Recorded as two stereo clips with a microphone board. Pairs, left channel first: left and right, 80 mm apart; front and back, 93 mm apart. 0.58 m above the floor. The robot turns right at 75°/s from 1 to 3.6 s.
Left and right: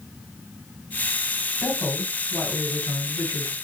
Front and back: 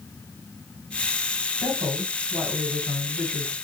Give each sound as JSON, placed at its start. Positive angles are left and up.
{"t": 1.6, "sound": "a woman speaking", "azimuth_deg": 170, "distance_m": 1.8}